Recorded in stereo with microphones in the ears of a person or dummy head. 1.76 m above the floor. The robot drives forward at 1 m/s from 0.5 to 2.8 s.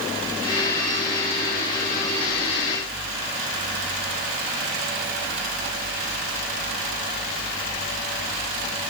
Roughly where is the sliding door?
No sliding door in this recording.